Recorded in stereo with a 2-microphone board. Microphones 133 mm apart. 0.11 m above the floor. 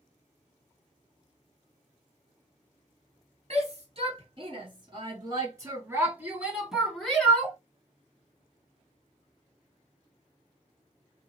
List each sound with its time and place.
3.5 s a shout: 50° right (ahead or behind), 2 m; by 7.6 s 15° left (ahead or behind), 1.7 m